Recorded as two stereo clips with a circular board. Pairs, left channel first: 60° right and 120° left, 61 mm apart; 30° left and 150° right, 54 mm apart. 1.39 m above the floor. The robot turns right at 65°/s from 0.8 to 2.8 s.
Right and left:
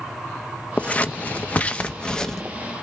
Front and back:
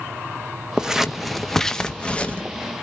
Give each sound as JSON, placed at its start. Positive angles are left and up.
{"t": 0.8, "sound": "scissors", "azimuth_deg": -90, "distance_m": 0.6}